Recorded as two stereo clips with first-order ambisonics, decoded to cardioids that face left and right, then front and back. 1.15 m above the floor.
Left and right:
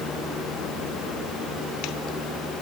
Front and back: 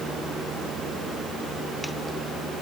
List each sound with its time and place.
Only background noise.